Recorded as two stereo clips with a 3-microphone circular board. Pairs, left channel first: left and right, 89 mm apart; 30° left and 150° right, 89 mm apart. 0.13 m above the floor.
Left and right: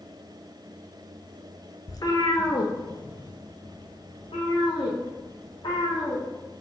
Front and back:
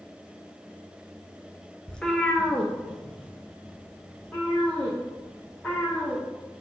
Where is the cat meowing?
105° left, 0.7 m; by 6.2 s 110° left, 3 m.